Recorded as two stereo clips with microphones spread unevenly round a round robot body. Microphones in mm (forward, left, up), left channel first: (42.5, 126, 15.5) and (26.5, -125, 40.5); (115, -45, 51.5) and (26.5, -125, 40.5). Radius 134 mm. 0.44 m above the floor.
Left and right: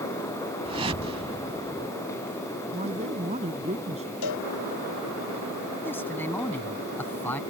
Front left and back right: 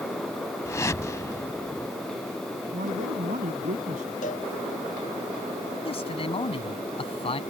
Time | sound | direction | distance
0.7 | a whoosh | 25° right | ?
2.7 | a man speaking | 160° right | ?
4.2 | a cowbell | 90° left | ?
5.8 | a man speaking | 5° left | ?